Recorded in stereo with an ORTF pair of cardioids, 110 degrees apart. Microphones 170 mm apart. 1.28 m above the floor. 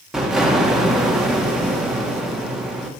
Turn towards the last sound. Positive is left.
turn(degrees=0)